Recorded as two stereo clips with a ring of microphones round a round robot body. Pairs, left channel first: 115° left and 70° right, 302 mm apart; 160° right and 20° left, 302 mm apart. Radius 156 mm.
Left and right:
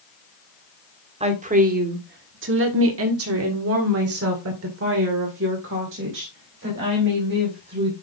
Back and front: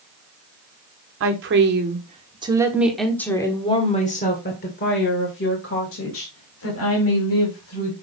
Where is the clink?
No clink in this recording.